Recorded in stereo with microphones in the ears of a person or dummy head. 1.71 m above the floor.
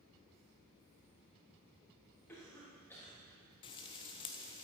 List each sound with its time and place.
2.3 s a cough: 15° left (ahead or behind), 3.5 m
3.6 s frying: 25° left (ahead or behind), 0.8 m